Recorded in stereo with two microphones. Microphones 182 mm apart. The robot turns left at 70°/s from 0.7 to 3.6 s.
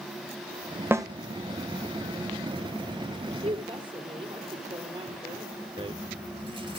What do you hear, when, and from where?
0.9 s a snare drum: 15° right (ahead or behind), 1.5 m; by 1.1 s 25° right (ahead or behind), 1.5 m
3.3 s a woman speaking: 45° right (ahead or behind), 3 m; by 5.7 s 30° right (ahead or behind), 3 m
5.8 s a rattle: 30° right (ahead or behind), 0.8 m